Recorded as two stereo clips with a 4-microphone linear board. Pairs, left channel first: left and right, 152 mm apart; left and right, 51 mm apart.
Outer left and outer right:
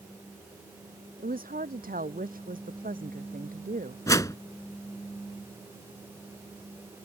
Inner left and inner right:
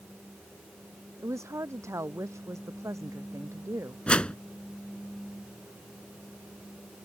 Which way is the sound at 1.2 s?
70° right (ahead or behind).